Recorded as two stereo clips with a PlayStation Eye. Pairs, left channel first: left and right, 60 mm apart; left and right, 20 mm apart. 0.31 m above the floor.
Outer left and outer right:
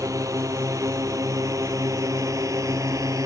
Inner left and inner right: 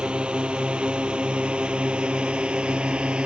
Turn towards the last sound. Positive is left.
turn(degrees=-75)  # may be behind; listen again after turning